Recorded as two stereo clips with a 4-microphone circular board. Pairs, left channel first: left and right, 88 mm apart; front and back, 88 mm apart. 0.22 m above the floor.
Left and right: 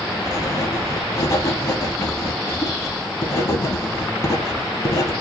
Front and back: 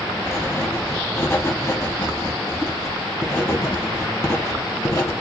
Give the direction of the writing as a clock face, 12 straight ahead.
10 o'clock.